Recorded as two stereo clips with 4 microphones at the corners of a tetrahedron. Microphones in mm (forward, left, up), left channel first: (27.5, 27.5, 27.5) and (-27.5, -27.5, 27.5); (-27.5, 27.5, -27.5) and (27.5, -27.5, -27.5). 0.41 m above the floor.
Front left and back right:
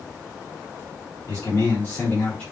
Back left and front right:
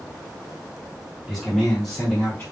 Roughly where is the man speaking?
Ahead left.